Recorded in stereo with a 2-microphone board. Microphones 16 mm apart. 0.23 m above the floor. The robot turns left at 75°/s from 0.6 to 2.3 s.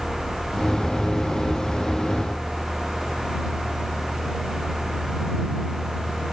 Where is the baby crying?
No baby crying in this recording.